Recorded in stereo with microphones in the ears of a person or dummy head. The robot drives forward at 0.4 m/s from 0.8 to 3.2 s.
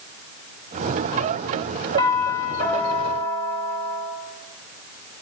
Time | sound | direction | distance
2.0 | a doorbell | 25° left (ahead or behind) | 2.5 m